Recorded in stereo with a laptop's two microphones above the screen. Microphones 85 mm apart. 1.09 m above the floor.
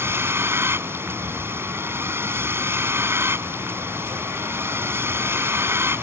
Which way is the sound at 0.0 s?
30° right (ahead or behind).